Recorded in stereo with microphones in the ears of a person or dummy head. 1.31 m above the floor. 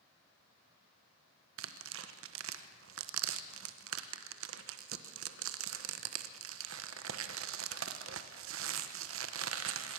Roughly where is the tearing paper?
Right.